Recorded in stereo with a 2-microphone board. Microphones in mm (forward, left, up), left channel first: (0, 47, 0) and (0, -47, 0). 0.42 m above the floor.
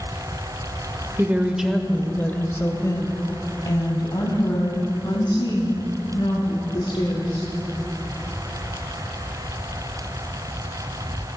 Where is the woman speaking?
25° right (ahead or behind), 1.1 m; by 7.5 s 60° left (ahead or behind), 5 m.